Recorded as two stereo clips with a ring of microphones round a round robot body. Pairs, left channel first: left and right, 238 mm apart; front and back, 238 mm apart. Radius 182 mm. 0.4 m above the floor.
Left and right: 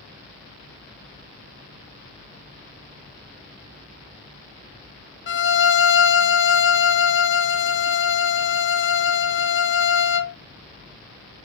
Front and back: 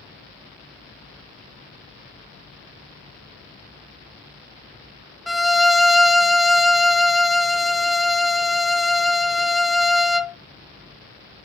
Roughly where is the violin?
Left.